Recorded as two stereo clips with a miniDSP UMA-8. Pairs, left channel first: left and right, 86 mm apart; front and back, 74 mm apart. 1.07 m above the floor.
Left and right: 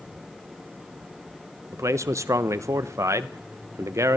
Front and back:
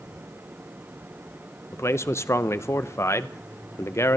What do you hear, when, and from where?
1.7 s a man speaking: 45° right, 0.6 m